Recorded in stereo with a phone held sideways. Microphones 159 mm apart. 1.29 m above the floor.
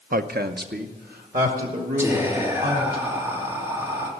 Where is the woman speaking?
65° right (ahead or behind), 0.6 m.